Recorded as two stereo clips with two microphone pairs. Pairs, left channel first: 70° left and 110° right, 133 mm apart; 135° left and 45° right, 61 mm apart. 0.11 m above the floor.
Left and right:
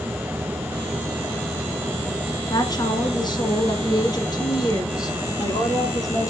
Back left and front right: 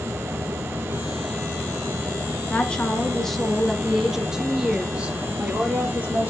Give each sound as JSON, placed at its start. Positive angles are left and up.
{"t": 2.5, "sound": "a woman speaking", "azimuth_deg": 85, "distance_m": 1.5}